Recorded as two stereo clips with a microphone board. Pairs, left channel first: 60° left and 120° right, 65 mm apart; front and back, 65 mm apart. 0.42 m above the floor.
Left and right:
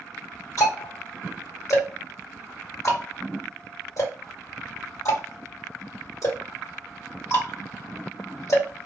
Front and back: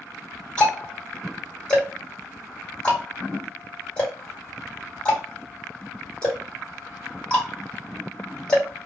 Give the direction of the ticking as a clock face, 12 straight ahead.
10 o'clock.